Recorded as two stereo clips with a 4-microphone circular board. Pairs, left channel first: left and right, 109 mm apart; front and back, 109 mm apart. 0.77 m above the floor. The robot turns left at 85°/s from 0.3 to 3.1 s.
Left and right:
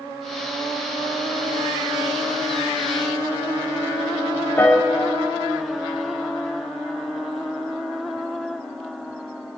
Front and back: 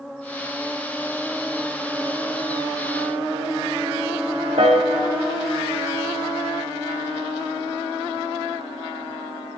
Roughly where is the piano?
Behind.